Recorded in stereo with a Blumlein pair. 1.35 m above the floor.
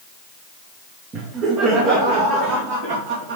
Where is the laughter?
25° right, 1.5 m; by 3.4 s 50° right, 2.5 m.